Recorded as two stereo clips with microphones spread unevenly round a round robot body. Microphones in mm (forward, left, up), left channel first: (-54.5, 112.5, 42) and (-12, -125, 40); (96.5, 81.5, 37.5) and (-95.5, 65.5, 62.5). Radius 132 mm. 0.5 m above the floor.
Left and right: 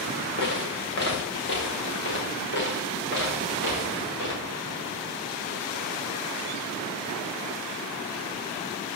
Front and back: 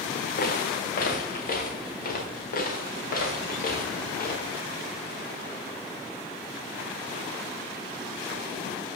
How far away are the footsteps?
About 2.5 m.